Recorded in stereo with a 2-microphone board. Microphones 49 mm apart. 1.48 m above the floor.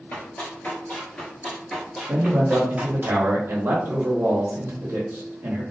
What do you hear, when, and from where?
0.1 s running footsteps: 35° left (ahead or behind), 1.7 m; by 3.1 s 25° right (ahead or behind), 1.8 m
2.1 s a man speaking: 60° right (ahead or behind), 0.9 m